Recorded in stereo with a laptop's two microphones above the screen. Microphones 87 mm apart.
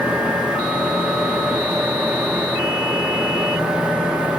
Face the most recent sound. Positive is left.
turn(degrees=-10)  # may be behind; listen again after turning